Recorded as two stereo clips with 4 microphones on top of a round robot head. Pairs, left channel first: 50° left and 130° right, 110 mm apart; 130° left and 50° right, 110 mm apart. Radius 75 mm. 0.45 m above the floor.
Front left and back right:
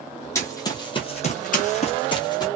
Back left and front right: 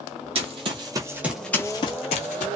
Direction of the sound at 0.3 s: 15° right.